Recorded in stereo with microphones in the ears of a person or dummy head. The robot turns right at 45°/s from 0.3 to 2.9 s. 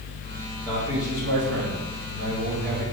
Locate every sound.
0.7 s a man speaking: 160° right, 4.5 m; by 2.9 s 60° right, 4.5 m